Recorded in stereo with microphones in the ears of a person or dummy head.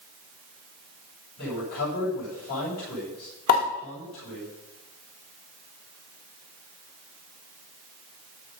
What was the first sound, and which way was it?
A man speaking, 55° left (ahead or behind).